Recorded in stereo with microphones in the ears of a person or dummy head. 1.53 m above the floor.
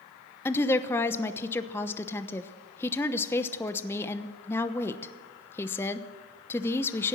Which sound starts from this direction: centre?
A woman speaking, at 0.5 s.